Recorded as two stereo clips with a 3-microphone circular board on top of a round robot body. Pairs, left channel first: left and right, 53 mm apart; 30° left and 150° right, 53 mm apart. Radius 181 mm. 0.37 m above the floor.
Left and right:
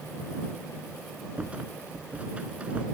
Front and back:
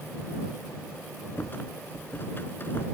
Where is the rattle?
20° right.